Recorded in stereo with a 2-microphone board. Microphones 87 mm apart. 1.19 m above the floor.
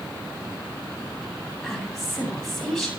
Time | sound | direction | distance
1.6 | a woman speaking | 5° left (ahead or behind) | 8 m